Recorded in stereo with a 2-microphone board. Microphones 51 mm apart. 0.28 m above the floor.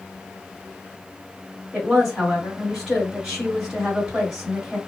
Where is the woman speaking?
15° right (ahead or behind), 1.8 m.